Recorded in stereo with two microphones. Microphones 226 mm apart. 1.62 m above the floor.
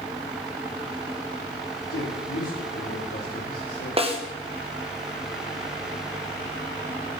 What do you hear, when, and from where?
1.9 s a man speaking: 85° left, 5 m
4.0 s a snare drum: 25° right (ahead or behind), 1.7 m